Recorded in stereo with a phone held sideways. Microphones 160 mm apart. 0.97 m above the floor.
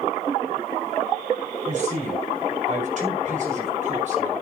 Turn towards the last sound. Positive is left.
turn(degrees=-50)  # may be behind; listen again after turning